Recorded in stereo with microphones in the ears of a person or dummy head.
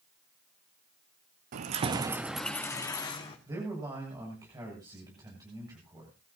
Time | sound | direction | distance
1.5 | keys jangling | 55° right (ahead or behind) | 1.1 m
3.5 | a man speaking | 20° right (ahead or behind) | 7.5 m